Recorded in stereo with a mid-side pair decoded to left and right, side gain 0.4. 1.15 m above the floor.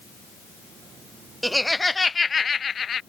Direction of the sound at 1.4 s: 5° right.